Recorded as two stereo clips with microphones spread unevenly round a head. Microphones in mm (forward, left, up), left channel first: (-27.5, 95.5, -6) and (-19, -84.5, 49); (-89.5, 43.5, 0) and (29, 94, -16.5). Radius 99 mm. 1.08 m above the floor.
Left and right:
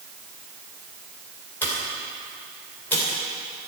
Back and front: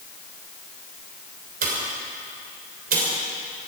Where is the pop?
10° left, 3 m.